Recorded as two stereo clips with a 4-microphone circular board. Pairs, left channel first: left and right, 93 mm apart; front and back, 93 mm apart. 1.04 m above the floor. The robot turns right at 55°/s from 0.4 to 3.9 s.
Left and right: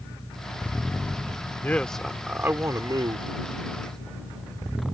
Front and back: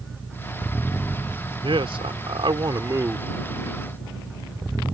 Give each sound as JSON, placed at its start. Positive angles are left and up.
{"t": 1.6, "sound": "a man speaking", "azimuth_deg": 160}